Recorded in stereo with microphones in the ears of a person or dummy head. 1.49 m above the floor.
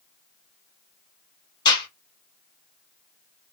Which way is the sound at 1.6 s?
25° left (ahead or behind).